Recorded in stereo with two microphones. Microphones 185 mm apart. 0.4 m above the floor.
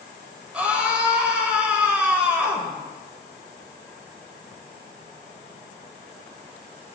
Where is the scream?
5° right (ahead or behind), 1.7 m.